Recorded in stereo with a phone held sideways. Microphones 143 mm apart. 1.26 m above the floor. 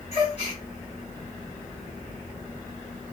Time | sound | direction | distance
0.1 | a gasp | 45° left (ahead or behind) | 1.6 m